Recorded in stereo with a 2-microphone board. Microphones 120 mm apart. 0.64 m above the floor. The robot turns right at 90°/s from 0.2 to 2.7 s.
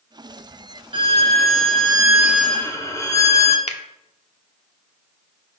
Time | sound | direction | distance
0.9 | a violin | 130° right | 1.0 m
3.7 | a finger snap | 65° left (ahead or behind) | 0.8 m